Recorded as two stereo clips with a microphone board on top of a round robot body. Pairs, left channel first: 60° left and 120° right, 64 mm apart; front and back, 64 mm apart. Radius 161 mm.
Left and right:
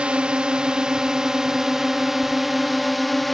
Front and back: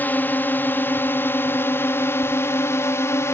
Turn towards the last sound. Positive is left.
turn(degrees=-30)